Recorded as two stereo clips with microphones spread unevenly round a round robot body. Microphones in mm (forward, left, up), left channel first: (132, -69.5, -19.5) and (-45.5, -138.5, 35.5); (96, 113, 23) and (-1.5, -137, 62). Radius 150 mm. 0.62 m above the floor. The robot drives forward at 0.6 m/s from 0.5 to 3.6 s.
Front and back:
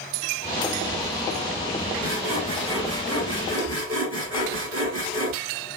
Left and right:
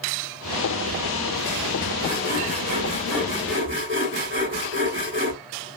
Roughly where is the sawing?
Behind.